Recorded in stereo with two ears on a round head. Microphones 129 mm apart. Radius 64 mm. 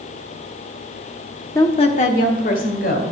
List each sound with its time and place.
1.6 s a woman speaking: 20° left (ahead or behind), 0.7 m; by 3.1 s 65° left (ahead or behind), 2.5 m